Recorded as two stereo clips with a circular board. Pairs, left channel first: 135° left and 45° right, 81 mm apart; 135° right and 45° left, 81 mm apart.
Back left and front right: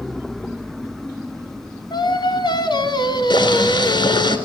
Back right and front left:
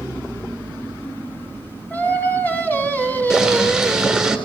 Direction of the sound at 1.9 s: 155° left.